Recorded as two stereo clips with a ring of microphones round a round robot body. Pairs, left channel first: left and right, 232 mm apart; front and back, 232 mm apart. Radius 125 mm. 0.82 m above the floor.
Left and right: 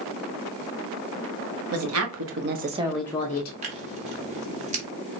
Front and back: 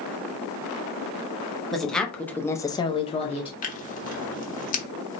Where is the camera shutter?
I don't hear a camera shutter.